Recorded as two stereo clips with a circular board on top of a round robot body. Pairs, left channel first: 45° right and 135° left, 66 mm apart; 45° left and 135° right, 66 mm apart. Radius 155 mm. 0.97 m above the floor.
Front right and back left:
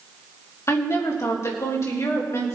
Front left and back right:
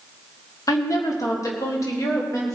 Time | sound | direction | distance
0.7 | a woman speaking | 5° left | 1.9 m